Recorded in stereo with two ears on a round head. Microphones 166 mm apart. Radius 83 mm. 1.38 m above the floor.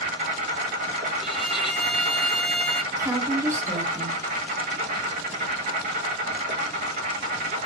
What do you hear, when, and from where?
0.0 s an insect: 40° right (ahead or behind), 0.9 m
1.2 s a violin: centre (ahead or behind), 0.5 m
2.9 s a woman speaking: 15° right (ahead or behind), 0.9 m